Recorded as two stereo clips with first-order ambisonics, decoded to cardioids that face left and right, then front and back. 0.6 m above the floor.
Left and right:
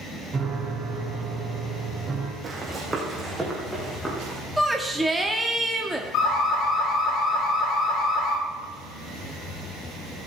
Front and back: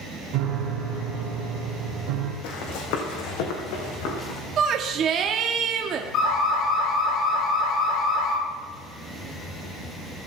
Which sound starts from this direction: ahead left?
An alarm, at 6.1 s.